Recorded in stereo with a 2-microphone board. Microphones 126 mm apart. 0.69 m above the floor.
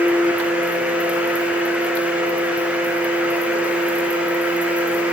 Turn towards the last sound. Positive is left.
No sound to turn to.